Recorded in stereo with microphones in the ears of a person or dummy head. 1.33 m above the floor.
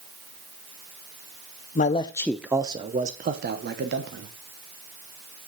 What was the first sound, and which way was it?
A man speaking, 35° left (ahead or behind).